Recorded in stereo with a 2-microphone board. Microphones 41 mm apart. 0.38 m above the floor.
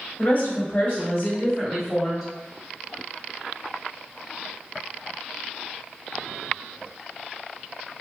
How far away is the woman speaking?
About 1.7 m.